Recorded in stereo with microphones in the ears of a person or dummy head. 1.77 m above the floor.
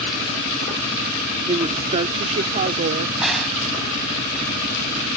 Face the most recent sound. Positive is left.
turn(degrees=0)  # may be behind; listen again after turning